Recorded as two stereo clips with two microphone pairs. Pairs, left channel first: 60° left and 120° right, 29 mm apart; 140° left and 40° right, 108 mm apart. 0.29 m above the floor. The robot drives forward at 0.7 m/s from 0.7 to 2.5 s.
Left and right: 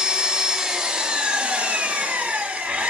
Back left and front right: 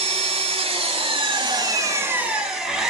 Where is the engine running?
45° right, 1.2 m; by 2.9 s 125° right, 1.0 m.